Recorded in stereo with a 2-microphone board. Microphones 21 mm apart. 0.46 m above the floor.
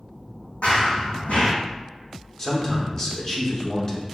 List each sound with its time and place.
0.6 s running footsteps: 70° left (ahead or behind), 1.2 m
2.4 s a man speaking: 25° left (ahead or behind), 0.8 m